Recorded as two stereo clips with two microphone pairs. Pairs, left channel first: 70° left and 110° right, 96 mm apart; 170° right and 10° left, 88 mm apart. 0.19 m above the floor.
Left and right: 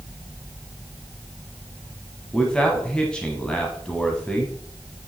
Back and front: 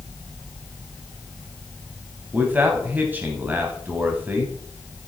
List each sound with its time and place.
2.3 s a man speaking: 10° left, 1.0 m